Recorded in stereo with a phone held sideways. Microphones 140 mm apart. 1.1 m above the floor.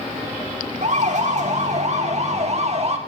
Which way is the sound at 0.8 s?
60° right (ahead or behind).